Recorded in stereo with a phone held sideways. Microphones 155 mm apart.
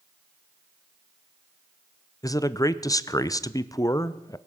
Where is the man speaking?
20° left (ahead or behind), 0.6 m.